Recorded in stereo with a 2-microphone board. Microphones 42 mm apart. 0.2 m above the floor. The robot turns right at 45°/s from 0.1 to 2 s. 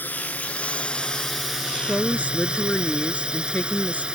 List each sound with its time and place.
0.0 s a drone: 120° left; by 4.2 s 155° right
1.9 s a woman speaking: 30° left (ahead or behind); by 4.0 s 35° left (ahead or behind)